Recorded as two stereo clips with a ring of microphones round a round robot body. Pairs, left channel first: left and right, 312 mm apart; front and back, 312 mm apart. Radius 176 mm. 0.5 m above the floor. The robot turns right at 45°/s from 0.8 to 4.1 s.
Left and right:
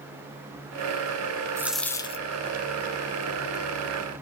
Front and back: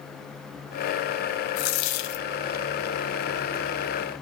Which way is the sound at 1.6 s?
10° right.